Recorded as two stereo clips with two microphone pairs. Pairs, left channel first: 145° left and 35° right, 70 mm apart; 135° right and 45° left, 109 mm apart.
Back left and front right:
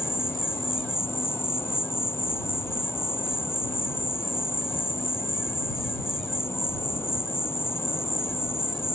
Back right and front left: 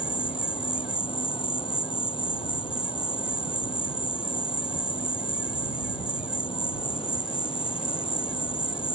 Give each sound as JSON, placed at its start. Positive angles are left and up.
{"t": 0.0, "sound": "an insect", "azimuth_deg": -165}